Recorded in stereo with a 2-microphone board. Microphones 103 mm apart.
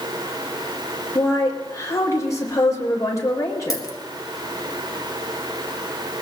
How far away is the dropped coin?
About 1.4 m.